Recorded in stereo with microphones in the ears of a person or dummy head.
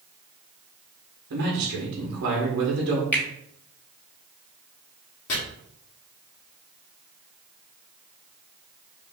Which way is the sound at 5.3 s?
70° left (ahead or behind).